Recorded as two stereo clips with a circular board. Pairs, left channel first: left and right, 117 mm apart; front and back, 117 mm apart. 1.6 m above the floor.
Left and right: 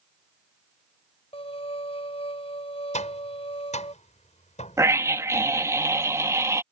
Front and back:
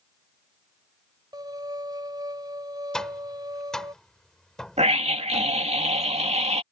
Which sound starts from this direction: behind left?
A violin, at 1.3 s.